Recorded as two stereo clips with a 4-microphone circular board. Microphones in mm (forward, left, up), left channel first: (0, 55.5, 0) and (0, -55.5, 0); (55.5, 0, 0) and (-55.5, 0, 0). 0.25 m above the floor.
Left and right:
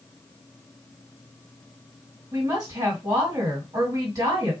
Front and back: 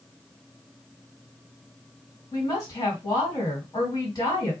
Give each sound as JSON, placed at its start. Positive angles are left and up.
{"t": 2.3, "sound": "a woman speaking", "azimuth_deg": -45, "distance_m": 2.0}